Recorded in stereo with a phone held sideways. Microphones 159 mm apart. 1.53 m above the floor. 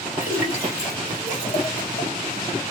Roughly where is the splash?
Left.